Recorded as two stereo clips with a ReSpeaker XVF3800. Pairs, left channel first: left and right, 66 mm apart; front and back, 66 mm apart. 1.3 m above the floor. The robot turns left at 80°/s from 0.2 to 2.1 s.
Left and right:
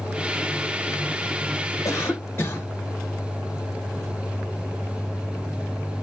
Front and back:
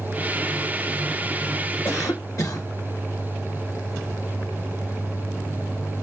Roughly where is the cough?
Ahead left.